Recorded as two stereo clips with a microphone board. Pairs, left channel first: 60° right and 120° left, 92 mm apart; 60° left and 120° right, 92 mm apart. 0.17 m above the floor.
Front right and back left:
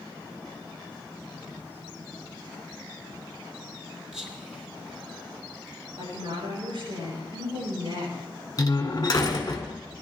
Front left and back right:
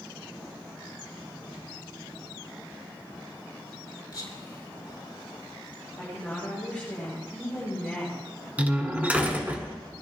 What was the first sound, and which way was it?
Whispering, 35° left.